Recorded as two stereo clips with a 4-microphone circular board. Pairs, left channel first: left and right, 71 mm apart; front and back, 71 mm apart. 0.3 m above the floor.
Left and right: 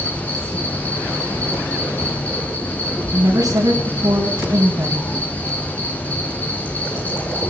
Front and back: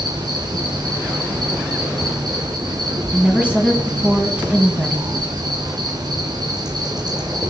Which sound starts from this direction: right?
A woman speaking, at 3.1 s.